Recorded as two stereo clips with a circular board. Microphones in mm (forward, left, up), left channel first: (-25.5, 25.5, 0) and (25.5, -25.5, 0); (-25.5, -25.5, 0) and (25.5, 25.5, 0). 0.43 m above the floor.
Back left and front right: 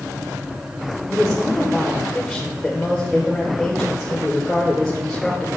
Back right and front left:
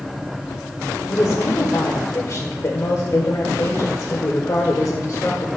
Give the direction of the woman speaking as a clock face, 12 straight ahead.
5 o'clock.